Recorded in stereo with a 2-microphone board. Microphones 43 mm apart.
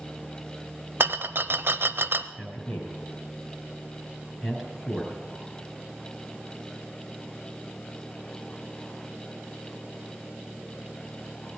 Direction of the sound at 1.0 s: 60° right (ahead or behind).